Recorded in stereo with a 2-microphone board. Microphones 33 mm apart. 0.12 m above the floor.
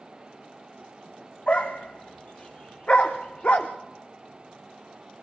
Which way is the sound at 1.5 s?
45° left (ahead or behind).